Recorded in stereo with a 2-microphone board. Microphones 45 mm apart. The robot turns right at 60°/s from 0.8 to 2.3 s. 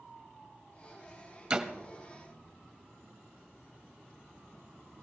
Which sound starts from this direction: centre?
A door slam, at 1.5 s.